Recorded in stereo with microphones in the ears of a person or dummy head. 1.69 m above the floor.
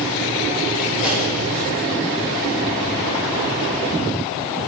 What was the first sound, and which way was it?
A pop, 35° left (ahead or behind).